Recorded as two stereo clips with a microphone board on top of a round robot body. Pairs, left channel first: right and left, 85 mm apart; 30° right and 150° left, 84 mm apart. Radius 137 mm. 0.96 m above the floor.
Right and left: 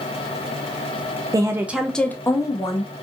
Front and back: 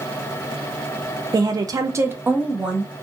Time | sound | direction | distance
1.3 | a woman speaking | 120° left | 0.5 m